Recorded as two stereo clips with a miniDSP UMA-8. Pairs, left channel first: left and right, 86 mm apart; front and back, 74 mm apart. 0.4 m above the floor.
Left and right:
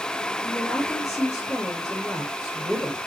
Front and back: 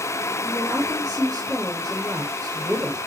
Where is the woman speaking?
145° left, 5 m.